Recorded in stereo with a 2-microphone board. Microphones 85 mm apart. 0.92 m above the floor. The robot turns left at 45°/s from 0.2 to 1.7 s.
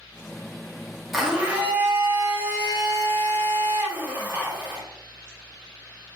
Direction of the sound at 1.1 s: Centre (ahead or behind).